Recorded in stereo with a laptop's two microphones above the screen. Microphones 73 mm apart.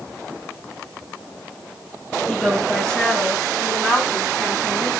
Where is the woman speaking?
10° left (ahead or behind), 7.5 m; by 4.9 s centre (ahead or behind), 9.5 m.